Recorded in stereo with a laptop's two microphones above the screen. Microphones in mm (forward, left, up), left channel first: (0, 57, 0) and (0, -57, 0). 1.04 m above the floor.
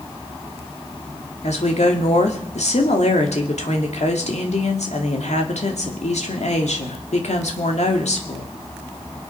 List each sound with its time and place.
1.4 s a woman speaking: 80° left, 2.5 m